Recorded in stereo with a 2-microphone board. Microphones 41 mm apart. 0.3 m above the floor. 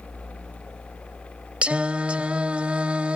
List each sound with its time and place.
1.6 s singing: 30° right (ahead or behind)